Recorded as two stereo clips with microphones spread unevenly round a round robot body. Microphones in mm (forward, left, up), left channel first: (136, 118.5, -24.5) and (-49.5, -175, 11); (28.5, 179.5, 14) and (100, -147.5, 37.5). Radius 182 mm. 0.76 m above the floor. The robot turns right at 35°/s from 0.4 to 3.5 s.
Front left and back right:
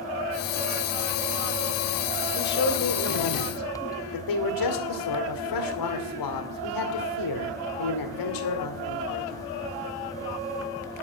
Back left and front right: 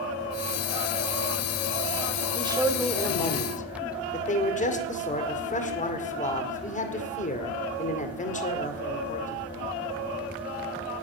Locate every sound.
2.4 s a man speaking: 5° right, 2 m; by 9.4 s 35° left, 2 m